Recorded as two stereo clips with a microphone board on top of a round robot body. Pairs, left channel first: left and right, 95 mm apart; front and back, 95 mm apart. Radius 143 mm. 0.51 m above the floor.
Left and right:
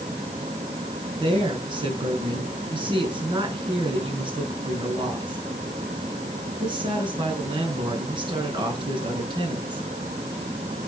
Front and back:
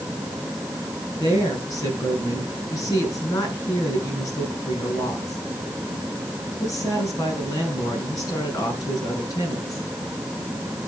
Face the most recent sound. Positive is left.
turn(degrees=-55)